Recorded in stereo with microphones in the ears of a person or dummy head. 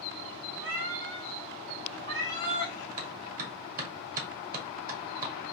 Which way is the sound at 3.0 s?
45° right (ahead or behind).